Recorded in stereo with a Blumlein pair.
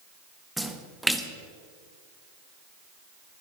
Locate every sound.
0.6 s a splash: straight ahead, 1.1 m